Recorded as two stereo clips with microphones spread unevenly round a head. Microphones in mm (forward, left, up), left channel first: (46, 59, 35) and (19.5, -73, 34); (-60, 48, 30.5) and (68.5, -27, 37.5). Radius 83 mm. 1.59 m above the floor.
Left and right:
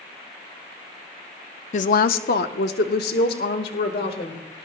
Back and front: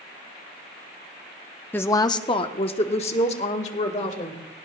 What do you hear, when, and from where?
1.7 s a woman speaking: 70° left, 0.5 m; by 4.4 s 105° left, 2 m